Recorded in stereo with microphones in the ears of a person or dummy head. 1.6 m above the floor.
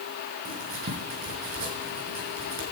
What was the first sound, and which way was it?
Writing, 45° right (ahead or behind).